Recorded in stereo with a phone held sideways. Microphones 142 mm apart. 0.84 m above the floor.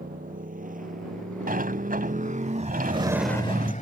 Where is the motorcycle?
75° right (ahead or behind); by 3.8 s 65° left (ahead or behind).